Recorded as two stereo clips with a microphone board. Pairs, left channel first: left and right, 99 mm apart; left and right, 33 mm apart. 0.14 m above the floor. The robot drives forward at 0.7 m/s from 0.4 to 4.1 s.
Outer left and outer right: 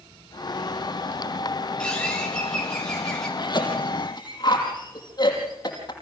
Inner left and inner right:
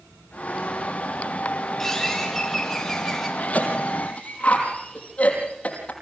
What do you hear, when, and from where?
1.8 s a bird: 10° left (ahead or behind), 3.5 m; by 3.3 s 5° left (ahead or behind), 4.5 m
3.4 s a cough: 45° left (ahead or behind), 5 m; by 5.9 s 40° left (ahead or behind), 5.5 m